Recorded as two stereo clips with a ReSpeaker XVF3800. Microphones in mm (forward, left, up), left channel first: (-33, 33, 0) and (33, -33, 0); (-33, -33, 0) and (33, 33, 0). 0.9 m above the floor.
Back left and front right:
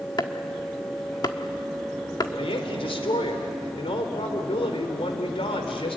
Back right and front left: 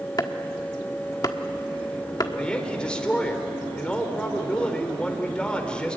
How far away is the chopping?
About 1.4 m.